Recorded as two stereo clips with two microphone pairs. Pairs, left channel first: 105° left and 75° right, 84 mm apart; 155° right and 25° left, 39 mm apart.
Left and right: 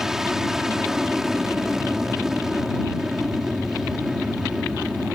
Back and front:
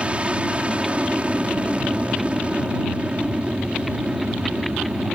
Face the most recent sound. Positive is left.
turn(degrees=10)